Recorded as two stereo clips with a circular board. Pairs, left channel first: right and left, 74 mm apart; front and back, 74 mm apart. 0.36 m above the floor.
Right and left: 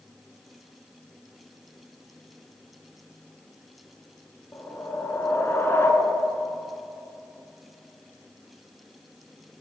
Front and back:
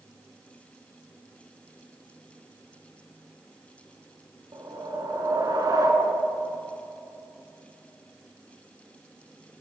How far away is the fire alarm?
No fire alarm in this recording.